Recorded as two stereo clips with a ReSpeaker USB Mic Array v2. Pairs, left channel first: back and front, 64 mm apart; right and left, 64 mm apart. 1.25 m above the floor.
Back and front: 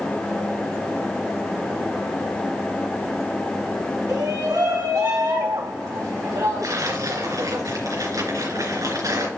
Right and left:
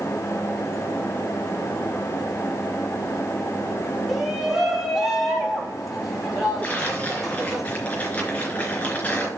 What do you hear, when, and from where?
4.1 s a shout: 5° left, 2.5 m; by 7.6 s straight ahead, 4.5 m
6.6 s tearing paper: 25° right, 4 m